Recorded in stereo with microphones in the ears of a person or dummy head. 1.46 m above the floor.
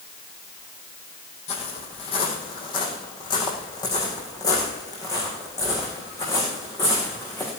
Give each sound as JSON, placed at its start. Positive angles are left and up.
{"t": 1.5, "sound": "footsteps", "side_deg": 35, "distance_m": 3.5}